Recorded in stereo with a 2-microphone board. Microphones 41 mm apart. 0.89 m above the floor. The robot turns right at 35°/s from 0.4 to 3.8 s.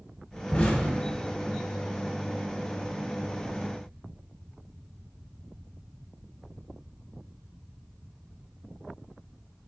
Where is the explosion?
30° left (ahead or behind), 0.7 m; by 1.6 s 10° left (ahead or behind), 0.7 m.